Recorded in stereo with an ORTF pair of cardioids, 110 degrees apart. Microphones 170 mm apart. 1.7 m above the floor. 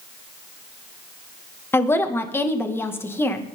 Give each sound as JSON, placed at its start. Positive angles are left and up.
{"t": 1.7, "sound": "a woman speaking", "azimuth_deg": 15, "distance_m": 2.0}